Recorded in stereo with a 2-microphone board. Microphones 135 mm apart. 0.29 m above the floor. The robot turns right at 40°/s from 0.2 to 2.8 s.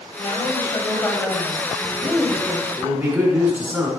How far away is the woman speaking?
About 1.7 m.